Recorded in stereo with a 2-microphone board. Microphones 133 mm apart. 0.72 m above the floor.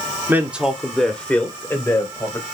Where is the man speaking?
15° right (ahead or behind), 1.8 m; by 2.4 s 25° left (ahead or behind), 4 m.